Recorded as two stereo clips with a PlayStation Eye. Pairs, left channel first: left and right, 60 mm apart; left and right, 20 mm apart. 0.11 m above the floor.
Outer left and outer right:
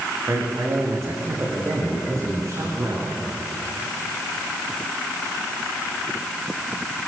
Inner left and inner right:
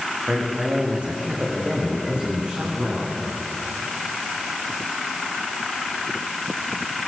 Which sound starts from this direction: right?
A man speaking, at 0.3 s.